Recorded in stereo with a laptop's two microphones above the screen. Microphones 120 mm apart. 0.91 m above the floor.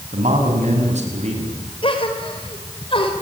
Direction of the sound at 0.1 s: 85° right.